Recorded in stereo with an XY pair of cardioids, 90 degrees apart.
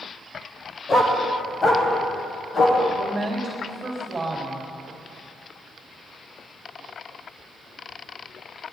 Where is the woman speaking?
25° right, 3 m.